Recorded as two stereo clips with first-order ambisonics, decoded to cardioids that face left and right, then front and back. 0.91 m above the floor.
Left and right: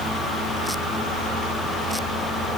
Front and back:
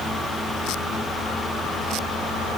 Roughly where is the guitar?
I don't hear a guitar.